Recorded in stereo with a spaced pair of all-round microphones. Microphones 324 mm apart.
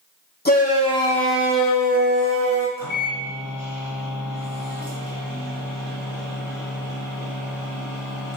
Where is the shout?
30° left (ahead or behind), 0.9 m; by 2.7 s 50° right (ahead or behind), 0.9 m.